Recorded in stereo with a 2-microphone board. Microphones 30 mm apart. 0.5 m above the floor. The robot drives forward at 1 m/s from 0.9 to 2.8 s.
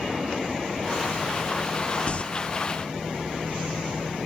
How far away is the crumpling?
About 0.9 m.